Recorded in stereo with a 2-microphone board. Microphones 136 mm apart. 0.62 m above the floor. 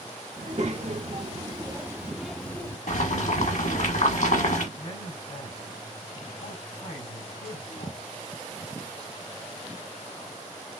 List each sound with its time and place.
0.4 s a child speaking: 60° right (ahead or behind), 1.3 m; by 2.8 s 20° left (ahead or behind), 0.9 m
2.9 s boiling: 65° left (ahead or behind), 1.3 m
4.8 s a man speaking: 80° left, 4 m